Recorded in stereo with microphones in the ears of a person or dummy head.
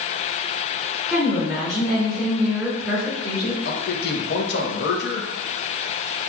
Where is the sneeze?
No sneeze in this recording.